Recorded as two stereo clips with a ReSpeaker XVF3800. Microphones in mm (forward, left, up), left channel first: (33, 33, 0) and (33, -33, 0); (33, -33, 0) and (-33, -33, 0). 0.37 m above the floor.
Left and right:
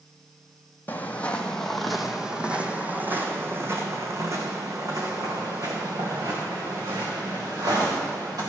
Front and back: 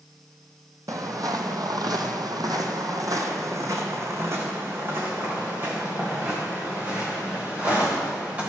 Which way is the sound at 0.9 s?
150° left.